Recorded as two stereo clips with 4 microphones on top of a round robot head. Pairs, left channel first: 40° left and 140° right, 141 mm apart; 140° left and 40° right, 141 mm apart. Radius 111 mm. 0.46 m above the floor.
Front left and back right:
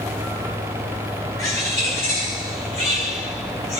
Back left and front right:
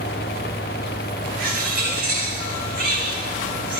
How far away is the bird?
About 5 m.